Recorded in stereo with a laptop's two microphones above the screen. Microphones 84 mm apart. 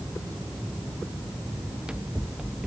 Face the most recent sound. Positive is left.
turn(degrees=-10)  # may be behind; listen again after turning